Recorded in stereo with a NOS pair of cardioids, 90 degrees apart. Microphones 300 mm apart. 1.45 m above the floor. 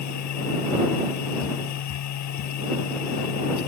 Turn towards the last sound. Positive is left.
turn(degrees=70)